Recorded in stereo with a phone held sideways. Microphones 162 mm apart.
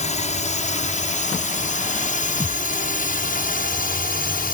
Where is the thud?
20° left (ahead or behind).